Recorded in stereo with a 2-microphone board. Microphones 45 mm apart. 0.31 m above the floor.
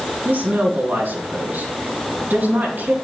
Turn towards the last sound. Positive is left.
turn(degrees=-50)  # may be behind; listen again after turning